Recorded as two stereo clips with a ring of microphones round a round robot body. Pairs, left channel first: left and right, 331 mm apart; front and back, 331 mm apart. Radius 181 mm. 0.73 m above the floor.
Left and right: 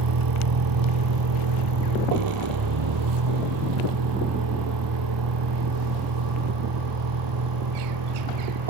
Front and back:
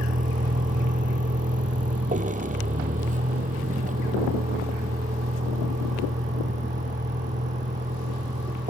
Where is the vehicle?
115° right; by 8.7 s 110° right.